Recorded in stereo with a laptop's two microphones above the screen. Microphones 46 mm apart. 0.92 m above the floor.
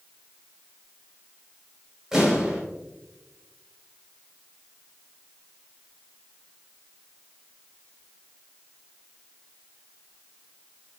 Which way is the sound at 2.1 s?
10° right (ahead or behind).